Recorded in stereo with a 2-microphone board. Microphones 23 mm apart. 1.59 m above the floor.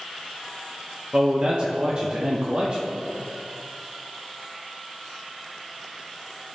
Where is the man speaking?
35° right (ahead or behind), 0.7 m.